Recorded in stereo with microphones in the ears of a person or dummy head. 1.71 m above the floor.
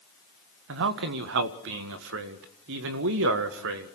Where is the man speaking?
75° right (ahead or behind), 1.6 m.